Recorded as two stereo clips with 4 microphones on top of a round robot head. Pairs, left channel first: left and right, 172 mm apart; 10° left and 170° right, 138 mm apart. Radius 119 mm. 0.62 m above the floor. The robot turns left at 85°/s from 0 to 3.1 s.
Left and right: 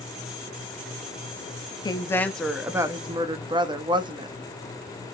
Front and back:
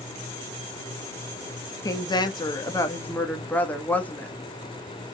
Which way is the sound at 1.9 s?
50° left.